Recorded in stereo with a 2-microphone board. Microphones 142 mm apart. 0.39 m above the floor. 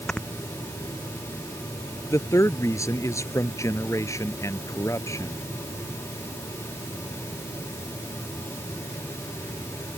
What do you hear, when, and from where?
0.1 s snoring: 5° left (ahead or behind)
2.1 s a man speaking: 20° left (ahead or behind)